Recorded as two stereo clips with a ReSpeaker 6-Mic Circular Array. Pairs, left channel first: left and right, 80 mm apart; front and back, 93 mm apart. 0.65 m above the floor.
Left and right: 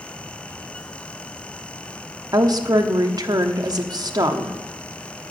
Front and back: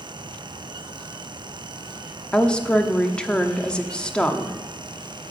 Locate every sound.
2.3 s a woman speaking: 80° right, 1.0 m